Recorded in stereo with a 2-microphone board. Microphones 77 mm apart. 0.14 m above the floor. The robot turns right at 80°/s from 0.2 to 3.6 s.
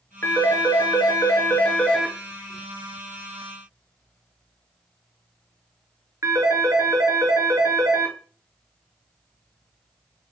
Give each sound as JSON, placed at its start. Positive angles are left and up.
{"t": 0.2, "sound": "a phone ringing", "side_deg": 30, "distance_m": 1.5}